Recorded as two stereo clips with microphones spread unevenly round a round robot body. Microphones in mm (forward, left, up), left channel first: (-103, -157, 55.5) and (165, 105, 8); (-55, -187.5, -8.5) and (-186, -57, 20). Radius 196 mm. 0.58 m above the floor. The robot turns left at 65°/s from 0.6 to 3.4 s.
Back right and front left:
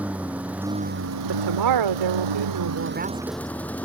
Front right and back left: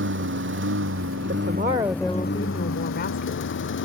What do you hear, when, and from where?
0.0 s a lawn mower: 130° left; by 3.9 s 50° right
1.3 s a woman speaking: 95° left; by 3.5 s 45° right